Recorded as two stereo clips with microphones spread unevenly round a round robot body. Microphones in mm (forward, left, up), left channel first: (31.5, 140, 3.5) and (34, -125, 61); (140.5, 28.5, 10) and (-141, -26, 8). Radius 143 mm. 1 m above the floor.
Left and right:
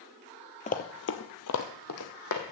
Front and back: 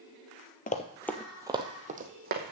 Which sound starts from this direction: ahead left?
Running footsteps, at 0.7 s.